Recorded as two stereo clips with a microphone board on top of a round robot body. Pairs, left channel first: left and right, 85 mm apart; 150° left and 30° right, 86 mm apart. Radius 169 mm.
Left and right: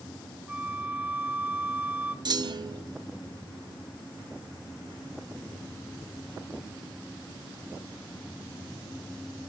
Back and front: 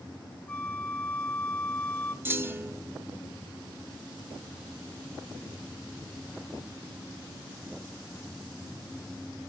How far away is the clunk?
About 0.6 m.